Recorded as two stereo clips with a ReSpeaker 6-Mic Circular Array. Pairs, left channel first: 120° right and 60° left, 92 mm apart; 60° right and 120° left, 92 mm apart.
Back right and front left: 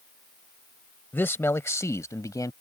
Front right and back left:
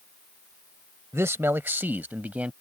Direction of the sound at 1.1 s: 175° left.